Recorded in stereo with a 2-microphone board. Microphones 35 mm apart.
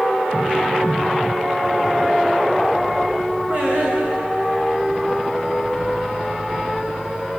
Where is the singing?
30° right (ahead or behind), 7 m.